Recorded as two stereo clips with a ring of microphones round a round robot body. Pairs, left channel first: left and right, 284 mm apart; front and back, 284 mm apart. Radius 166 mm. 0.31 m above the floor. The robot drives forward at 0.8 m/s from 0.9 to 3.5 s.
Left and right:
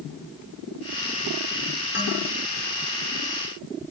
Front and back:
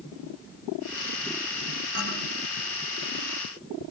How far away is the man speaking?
About 6 m.